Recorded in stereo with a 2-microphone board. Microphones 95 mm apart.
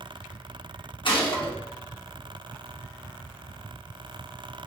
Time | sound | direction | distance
1.1 | a gunshot | 60° left (ahead or behind) | 0.9 m